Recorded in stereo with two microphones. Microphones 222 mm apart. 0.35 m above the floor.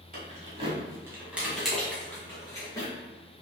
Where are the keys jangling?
40° right (ahead or behind), 1.4 m; by 2.9 s 20° left (ahead or behind), 2.5 m.